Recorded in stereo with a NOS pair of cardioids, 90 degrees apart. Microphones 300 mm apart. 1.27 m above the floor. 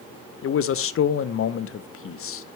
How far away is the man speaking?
About 0.7 m.